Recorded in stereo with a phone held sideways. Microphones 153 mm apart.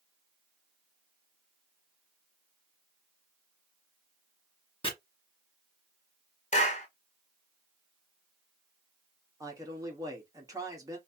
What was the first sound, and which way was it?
Chopping, 30° left (ahead or behind).